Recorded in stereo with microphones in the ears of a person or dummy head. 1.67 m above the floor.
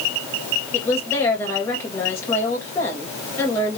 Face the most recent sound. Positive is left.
turn(degrees=10)  # may be behind; listen again after turning